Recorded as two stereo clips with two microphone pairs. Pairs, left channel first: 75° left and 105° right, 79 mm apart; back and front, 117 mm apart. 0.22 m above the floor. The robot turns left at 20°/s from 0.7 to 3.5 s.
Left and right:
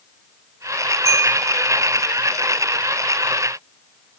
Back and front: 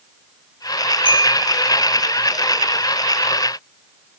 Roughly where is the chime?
Ahead right.